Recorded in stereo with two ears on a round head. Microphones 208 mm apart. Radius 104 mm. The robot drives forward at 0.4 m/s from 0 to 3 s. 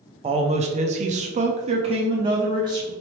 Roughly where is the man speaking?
Right.